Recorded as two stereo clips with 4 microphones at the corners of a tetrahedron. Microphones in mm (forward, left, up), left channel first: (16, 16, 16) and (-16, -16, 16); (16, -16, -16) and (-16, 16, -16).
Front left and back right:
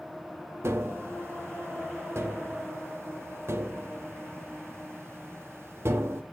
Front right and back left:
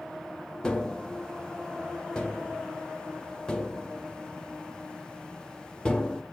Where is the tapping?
115° right, 0.7 m.